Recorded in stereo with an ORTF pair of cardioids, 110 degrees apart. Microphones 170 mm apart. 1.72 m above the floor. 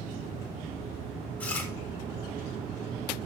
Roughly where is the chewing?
Ahead.